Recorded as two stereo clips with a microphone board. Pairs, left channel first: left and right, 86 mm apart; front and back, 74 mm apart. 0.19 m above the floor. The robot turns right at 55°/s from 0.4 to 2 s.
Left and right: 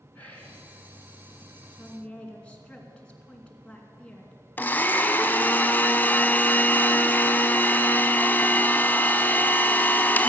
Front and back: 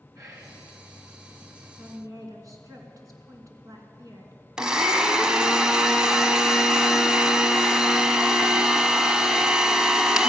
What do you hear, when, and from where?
0.1 s whispering: 155° left, 2.5 m; by 0.6 s 165° left, 2.5 m
1.8 s a woman speaking: 150° left, 2.5 m; by 4.3 s 165° left, 2.5 m
4.6 s a blender: 115° left, 0.8 m